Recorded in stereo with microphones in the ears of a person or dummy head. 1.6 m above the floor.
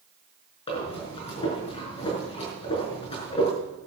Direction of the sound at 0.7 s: 30° left (ahead or behind).